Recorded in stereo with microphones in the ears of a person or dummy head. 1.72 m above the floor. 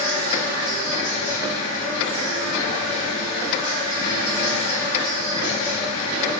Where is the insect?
50° left (ahead or behind), 1.9 m.